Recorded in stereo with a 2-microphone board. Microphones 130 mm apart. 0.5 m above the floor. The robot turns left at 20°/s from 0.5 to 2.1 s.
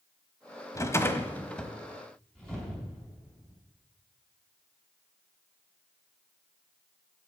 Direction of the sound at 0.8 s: 25° left (ahead or behind).